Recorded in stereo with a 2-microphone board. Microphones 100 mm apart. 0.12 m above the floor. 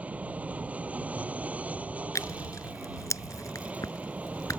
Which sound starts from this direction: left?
Tearing paper, at 2.1 s.